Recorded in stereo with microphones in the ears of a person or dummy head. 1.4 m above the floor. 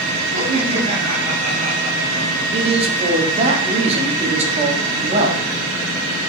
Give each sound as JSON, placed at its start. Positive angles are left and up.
{"t": 0.3, "sound": "laughter", "side_deg": -35, "distance_m": 8.0}
{"t": 2.5, "sound": "a man speaking", "side_deg": -35, "distance_m": 3.0}